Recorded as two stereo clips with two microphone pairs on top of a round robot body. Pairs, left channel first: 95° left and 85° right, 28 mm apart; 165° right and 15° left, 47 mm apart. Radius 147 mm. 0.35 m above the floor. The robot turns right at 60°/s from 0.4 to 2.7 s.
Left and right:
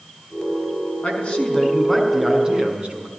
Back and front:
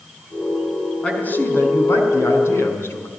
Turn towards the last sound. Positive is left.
turn(degrees=-135)